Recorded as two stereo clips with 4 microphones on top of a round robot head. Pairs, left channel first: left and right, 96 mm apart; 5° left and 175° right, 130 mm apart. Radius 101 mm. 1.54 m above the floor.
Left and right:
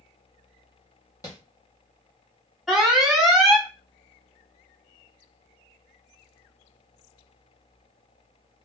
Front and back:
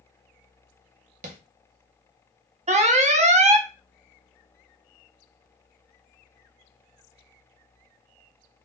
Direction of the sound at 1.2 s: 160° left.